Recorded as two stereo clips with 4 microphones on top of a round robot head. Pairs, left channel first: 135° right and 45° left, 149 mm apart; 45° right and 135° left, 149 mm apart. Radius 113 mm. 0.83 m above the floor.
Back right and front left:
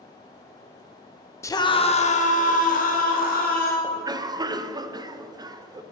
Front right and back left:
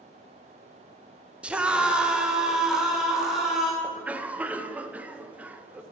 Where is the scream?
160° right, 0.7 m; by 3.7 s 140° right, 2.5 m.